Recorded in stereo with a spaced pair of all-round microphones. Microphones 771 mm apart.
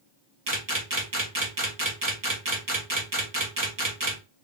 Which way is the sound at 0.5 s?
25° right (ahead or behind).